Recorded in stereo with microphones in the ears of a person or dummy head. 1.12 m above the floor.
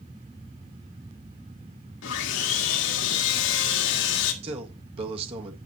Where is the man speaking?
30° right (ahead or behind), 1.5 m.